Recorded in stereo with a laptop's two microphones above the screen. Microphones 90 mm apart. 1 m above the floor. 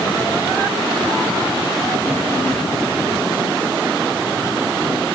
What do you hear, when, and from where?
Only background noise.